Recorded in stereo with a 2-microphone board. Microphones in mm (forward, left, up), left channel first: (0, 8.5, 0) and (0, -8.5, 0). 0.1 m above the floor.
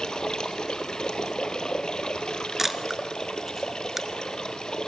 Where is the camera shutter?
15° right (ahead or behind), 1.0 m.